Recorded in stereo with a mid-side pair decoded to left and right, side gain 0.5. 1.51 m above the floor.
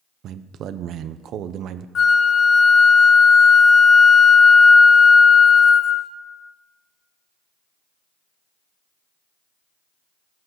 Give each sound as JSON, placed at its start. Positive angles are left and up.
{"t": 0.2, "sound": "a man speaking", "azimuth_deg": -65, "distance_m": 0.6}
{"t": 1.9, "sound": "a flute", "azimuth_deg": 50, "distance_m": 0.6}